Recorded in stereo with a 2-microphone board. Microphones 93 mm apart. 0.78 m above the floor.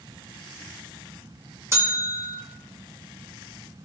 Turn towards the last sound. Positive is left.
turn(degrees=-30)  # may be behind; listen again after turning